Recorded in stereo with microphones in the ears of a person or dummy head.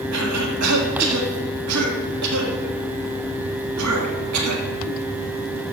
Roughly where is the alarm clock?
No alarm clock in this recording.